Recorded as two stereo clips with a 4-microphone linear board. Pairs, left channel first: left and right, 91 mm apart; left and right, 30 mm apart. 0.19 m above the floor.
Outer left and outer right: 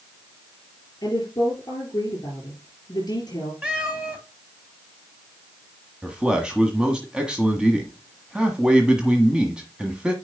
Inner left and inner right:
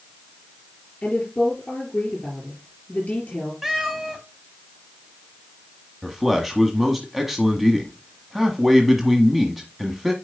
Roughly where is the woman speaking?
Left.